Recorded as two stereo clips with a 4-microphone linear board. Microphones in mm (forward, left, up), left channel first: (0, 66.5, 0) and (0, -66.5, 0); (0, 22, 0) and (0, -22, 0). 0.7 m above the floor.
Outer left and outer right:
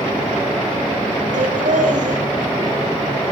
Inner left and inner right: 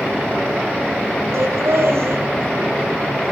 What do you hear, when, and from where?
1.3 s laughter: 75° right (ahead or behind), 4 m